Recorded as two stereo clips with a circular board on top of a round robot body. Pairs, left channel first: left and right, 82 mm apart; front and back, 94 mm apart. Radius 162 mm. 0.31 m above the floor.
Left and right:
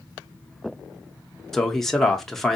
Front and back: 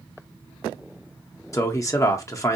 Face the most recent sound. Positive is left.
turn(degrees=10)